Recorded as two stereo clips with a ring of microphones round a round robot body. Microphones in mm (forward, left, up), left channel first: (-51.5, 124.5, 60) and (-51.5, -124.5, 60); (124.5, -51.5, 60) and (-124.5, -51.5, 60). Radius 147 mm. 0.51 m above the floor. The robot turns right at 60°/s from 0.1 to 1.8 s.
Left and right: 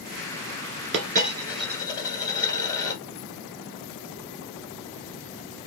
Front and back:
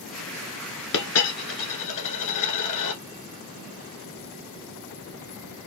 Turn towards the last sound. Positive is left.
turn(degrees=10)